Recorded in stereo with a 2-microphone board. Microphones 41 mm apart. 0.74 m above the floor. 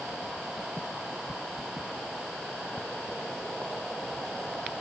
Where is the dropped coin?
I don't hear a dropped coin.